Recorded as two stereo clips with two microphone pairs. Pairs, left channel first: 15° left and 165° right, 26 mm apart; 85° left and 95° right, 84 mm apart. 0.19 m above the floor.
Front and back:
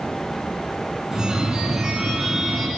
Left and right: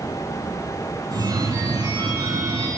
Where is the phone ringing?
95° right, 1.4 m.